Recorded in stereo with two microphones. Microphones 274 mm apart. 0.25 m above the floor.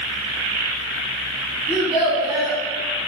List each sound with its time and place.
1.7 s a child speaking: 5° right (ahead or behind), 1.4 m